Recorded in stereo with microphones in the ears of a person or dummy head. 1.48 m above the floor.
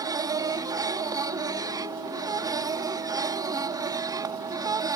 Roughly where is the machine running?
Centre.